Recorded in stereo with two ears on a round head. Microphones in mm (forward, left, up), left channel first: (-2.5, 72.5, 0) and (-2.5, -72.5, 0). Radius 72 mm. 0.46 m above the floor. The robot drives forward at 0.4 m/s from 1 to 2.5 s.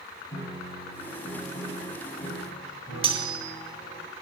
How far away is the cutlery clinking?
About 1.2 m.